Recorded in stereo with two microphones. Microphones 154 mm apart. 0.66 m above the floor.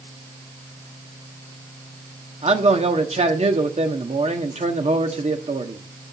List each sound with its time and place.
2.4 s a man speaking: 45° right (ahead or behind), 1.3 m